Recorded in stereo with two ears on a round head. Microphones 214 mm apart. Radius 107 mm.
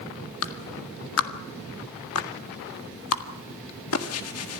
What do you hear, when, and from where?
0.4 s a clap: 65° left (ahead or behind), 1.8 m